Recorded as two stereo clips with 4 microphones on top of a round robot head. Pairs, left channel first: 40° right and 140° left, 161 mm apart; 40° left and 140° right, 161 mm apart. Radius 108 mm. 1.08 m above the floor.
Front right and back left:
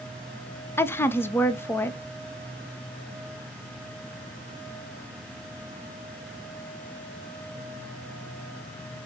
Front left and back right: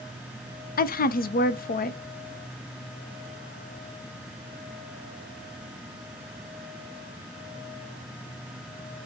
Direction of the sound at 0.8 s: 35° left.